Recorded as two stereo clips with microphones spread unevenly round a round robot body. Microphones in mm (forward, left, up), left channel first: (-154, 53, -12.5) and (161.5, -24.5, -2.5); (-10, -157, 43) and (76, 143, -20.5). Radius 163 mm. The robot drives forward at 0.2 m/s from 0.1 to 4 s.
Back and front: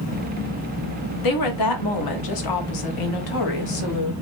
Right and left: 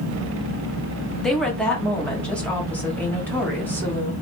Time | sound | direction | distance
1.2 | a woman speaking | 160° left | 1.3 m